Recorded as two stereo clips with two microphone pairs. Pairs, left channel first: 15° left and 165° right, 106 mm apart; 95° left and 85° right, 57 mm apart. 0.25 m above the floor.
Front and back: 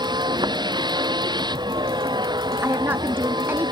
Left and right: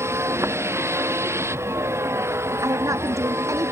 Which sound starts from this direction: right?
A woman speaking, at 2.6 s.